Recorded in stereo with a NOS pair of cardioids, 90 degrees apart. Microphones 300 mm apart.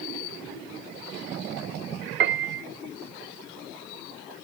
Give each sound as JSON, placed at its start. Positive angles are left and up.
{"t": 2.2, "sound": "a piano", "azimuth_deg": -40, "distance_m": 0.7}